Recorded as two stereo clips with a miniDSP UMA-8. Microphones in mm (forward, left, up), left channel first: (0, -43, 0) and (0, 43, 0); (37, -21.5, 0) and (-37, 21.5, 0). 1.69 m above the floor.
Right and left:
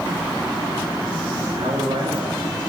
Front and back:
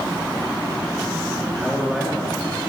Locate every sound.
1.5 s a man speaking: 60° left, 3 m